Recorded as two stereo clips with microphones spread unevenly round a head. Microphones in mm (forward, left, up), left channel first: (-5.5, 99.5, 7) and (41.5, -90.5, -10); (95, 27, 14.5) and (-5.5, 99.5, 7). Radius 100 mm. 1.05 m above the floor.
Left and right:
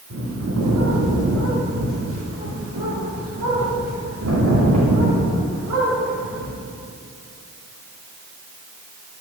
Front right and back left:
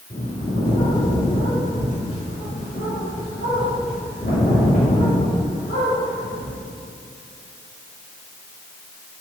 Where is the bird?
85° right, 2.5 m.